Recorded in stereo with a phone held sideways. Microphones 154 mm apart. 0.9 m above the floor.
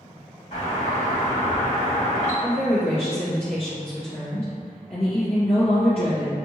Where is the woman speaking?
45° left (ahead or behind), 0.9 m.